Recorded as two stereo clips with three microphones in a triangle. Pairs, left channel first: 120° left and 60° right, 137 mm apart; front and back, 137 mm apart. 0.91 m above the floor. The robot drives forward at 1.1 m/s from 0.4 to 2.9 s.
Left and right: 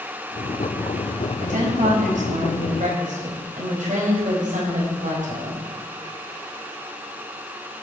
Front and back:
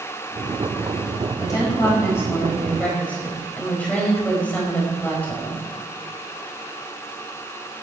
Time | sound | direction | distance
1.4 | a woman speaking | 65° right | 6 m